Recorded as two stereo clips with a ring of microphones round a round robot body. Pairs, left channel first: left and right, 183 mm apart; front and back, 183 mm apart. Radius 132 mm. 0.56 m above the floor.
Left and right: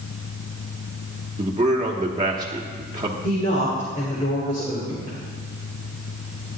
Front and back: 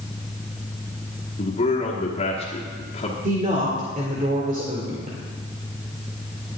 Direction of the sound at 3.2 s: 140° left.